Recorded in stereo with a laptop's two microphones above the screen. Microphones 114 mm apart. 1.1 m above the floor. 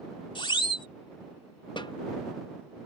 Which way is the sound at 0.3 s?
45° left (ahead or behind).